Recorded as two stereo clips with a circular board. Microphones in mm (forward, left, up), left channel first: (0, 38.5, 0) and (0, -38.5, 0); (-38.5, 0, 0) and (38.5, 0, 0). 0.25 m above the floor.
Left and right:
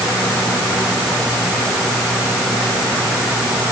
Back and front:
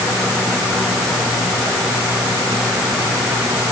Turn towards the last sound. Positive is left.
No sound to turn to.